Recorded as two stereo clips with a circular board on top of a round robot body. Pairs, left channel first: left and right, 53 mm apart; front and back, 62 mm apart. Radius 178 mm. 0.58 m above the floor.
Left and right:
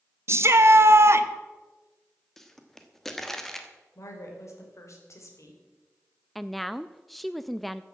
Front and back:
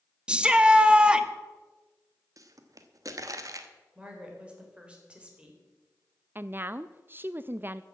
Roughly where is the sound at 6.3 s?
Behind.